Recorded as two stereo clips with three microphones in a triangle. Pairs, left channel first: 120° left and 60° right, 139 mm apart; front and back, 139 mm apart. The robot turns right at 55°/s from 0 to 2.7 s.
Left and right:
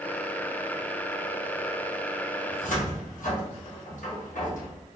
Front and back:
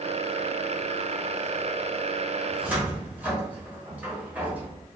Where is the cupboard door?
90° left, 1.1 m; by 4.7 s 100° left, 1.1 m.